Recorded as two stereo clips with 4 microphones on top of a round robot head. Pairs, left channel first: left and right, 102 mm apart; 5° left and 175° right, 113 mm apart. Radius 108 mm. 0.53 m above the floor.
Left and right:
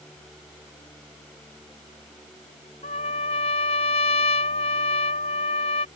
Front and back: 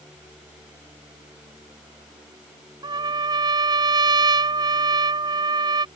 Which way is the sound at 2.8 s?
135° left.